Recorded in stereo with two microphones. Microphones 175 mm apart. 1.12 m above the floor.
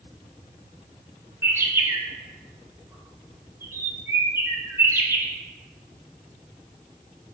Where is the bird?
15° right (ahead or behind), 0.7 m.